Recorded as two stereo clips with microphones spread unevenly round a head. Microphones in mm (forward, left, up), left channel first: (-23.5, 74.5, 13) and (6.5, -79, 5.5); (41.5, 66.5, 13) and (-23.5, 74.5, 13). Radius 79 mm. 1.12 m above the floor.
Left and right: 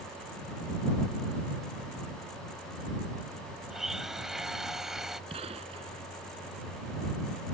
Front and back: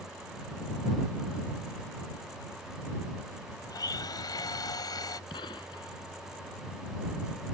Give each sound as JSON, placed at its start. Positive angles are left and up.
{"t": 3.7, "sound": "a blender", "azimuth_deg": 10}
{"t": 5.3, "sound": "a gunshot", "azimuth_deg": -20}